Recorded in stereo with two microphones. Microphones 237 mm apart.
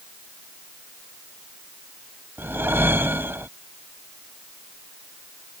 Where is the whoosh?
10° right (ahead or behind).